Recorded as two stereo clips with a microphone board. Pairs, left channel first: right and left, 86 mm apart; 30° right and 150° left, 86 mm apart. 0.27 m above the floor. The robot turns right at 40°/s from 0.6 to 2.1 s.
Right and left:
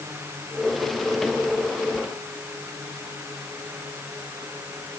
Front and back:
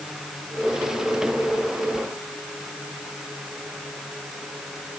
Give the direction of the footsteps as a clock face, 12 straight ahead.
I don't hear footsteps.